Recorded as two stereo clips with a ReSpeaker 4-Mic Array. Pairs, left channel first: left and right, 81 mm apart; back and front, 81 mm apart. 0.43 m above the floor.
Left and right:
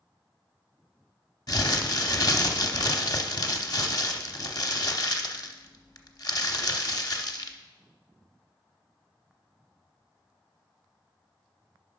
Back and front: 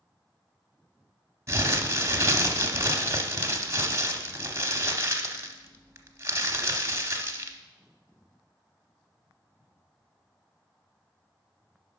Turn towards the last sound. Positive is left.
turn(degrees=50)